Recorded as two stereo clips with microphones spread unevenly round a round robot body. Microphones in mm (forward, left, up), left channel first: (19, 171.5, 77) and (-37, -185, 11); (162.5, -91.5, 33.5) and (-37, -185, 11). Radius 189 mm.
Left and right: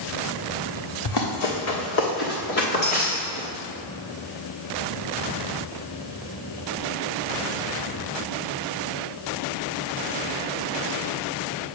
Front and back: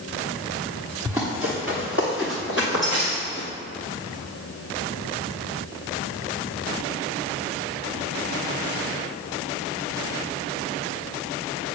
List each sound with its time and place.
1.1 s running footsteps: 120° left, 1.6 m; by 3.5 s 155° left, 3 m